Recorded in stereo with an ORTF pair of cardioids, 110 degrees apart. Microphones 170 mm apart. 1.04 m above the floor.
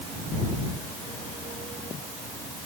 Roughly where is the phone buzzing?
I don't hear a phone buzzing.